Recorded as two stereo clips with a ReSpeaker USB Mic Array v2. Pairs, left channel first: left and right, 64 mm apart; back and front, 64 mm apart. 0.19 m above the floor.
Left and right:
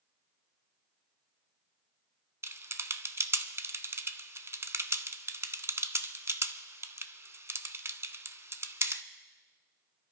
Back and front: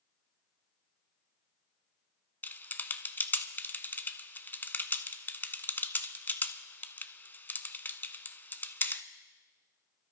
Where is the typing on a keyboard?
125° right, 0.6 m.